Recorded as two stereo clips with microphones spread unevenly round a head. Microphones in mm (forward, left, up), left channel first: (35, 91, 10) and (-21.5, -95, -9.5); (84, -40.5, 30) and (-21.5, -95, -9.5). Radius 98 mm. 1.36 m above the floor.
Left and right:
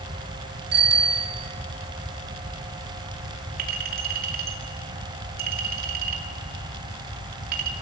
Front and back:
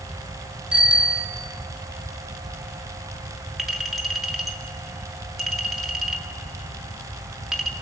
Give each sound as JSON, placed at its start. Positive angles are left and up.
{"t": 0.7, "sound": "a bicycle bell", "azimuth_deg": -70, "distance_m": 2.0}
{"t": 3.6, "sound": "a clink", "azimuth_deg": -60, "distance_m": 2.0}